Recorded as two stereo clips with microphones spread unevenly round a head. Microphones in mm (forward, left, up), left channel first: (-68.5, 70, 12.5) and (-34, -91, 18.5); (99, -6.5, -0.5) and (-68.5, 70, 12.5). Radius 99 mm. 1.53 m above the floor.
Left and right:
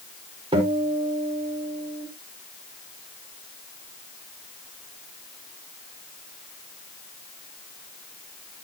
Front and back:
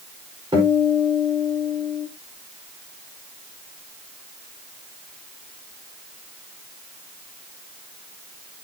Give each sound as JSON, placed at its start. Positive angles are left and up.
{"t": 0.5, "sound": "a guitar", "azimuth_deg": -135, "distance_m": 5.0}